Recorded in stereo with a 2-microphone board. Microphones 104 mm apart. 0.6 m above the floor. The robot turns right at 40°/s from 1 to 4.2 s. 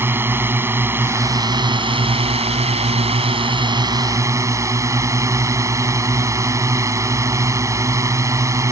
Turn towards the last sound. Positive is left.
turn(degrees=-30)